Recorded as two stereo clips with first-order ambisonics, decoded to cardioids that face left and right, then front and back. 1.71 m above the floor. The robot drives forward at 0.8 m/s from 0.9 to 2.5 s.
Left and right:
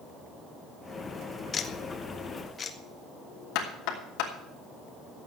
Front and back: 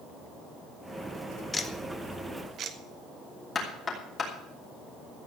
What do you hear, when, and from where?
1.5 s ticking: 50° left, 0.9 m; by 2.8 s 145° left, 1.0 m
3.5 s knocking: 70° left, 3 m